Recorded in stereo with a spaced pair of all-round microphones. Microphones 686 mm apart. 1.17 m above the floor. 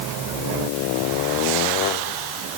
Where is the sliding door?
I don't hear a sliding door.